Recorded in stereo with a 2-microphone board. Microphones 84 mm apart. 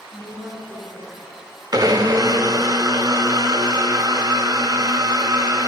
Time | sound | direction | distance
0.1 | a woman speaking | 55° right (ahead or behind) | 2 m
1.7 | a blender | 50° right (ahead or behind) | 0.5 m